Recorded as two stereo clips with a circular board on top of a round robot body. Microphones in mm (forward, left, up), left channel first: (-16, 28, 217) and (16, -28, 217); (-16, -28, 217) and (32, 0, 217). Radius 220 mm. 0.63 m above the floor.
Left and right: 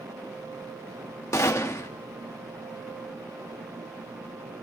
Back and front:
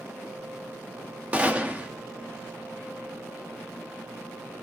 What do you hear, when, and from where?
1.3 s a gunshot: 90° left, 1.8 m